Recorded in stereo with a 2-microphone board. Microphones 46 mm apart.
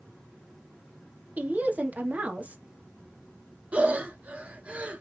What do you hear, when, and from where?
1.4 s a woman speaking: 35° right (ahead or behind), 1.4 m
3.7 s breathing: 30° right (ahead or behind), 0.9 m